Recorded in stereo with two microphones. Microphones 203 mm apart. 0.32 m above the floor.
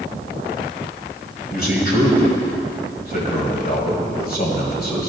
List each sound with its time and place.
1.5 s a man speaking: 50° left (ahead or behind), 1.8 m